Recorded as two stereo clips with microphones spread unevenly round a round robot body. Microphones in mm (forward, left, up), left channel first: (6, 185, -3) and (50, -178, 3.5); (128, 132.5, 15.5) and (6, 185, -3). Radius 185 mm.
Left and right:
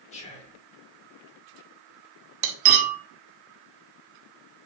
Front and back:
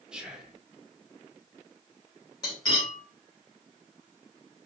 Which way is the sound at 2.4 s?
95° right.